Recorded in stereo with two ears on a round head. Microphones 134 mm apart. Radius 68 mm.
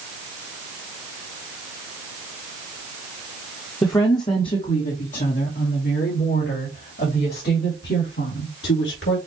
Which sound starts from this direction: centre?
A woman speaking, at 3.8 s.